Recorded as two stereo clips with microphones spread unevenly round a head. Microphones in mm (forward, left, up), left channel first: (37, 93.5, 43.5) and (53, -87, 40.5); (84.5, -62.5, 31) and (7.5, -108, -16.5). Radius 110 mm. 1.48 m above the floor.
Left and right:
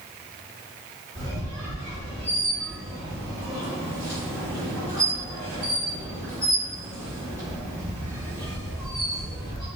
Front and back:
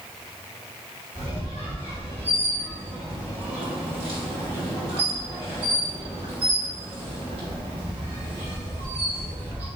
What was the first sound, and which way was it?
A squeak, 155° right.